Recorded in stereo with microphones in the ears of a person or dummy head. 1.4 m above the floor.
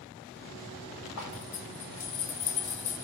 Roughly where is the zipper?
Left.